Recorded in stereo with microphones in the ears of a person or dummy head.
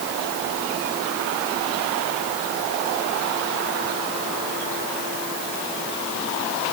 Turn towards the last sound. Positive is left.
No sound to turn to.